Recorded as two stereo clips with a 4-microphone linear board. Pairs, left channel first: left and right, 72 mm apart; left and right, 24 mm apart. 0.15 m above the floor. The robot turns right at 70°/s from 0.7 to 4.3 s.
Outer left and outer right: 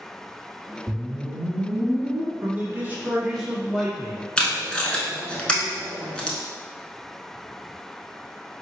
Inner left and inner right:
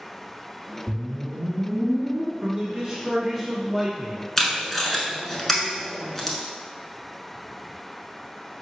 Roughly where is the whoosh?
Right.